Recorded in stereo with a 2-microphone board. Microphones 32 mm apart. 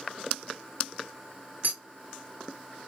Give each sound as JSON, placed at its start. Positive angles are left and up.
{"t": 1.6, "sound": "a clink", "side_deg": -75, "distance_m": 1.4}